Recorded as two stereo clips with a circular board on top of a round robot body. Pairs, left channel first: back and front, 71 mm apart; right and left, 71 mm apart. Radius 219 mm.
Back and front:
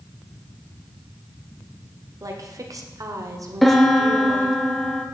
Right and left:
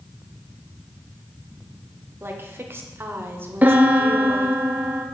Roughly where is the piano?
Left.